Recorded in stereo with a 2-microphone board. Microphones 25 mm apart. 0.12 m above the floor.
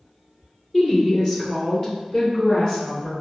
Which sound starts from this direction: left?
A woman speaking, at 0.7 s.